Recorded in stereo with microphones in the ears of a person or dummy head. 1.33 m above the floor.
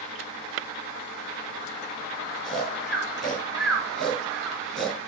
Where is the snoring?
5° right (ahead or behind), 4 m.